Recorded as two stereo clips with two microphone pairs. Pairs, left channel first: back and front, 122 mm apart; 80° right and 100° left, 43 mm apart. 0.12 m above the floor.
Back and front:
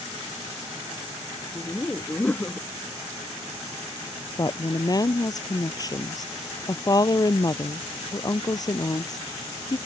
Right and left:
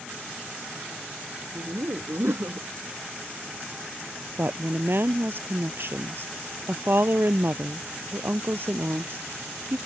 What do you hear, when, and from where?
1.6 s laughter: 100° left
4.4 s a woman speaking: 125° left